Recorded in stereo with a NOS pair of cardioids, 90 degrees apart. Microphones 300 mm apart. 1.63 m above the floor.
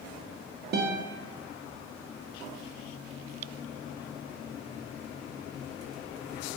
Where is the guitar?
40° right, 0.5 m.